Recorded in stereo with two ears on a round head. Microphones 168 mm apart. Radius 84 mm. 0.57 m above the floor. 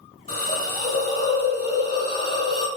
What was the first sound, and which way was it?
A hiss, 35° left (ahead or behind).